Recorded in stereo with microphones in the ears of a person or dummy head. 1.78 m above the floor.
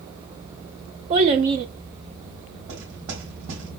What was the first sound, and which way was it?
A child speaking, 25° right (ahead or behind).